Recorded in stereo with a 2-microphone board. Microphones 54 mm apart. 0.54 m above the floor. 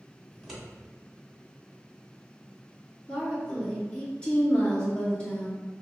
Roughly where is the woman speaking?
Centre.